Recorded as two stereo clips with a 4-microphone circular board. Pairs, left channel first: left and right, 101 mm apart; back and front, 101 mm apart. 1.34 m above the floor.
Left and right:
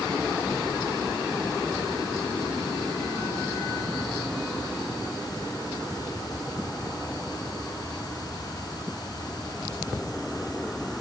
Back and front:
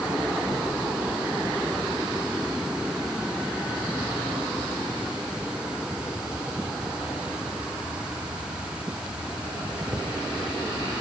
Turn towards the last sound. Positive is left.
No sound to turn to.